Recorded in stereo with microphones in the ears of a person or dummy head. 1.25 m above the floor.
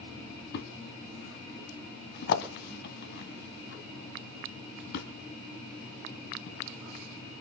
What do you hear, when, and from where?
0.5 s a thud: 60° left (ahead or behind), 2 m